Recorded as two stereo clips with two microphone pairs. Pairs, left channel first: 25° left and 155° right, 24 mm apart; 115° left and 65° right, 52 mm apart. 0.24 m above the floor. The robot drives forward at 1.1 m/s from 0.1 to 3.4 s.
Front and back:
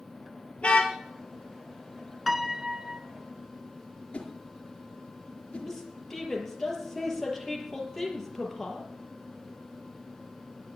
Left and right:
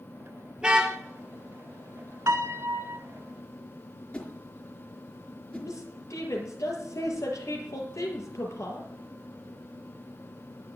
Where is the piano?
70° right, 1.2 m; by 3.0 s 110° right, 1.2 m.